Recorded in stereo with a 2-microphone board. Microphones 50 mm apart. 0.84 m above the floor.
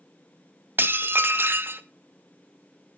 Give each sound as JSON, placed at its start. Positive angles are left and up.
{"t": 0.8, "sound": "dishes clattering", "side_deg": -45, "distance_m": 0.6}